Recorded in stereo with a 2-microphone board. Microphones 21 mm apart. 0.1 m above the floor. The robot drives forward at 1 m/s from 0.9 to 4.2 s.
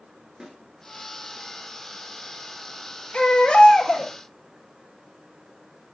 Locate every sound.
0.4 s a snare drum: 30° right (ahead or behind), 2 m
3.1 s a baby crying: 60° left (ahead or behind), 1.7 m; by 4.1 s 50° left (ahead or behind), 2.0 m